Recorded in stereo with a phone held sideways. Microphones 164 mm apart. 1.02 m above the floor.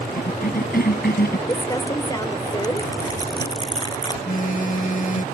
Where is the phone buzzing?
55° left (ahead or behind).